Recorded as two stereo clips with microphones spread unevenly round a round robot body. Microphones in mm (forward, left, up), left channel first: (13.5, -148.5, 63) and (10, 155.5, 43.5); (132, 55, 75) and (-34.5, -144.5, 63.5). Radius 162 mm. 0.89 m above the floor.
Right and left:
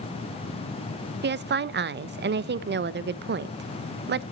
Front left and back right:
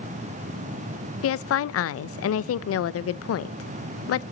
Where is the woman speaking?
50° left, 0.7 m.